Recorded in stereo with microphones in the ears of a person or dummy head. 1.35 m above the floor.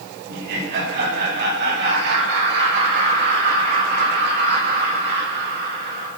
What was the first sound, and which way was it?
Laughter, 55° right (ahead or behind).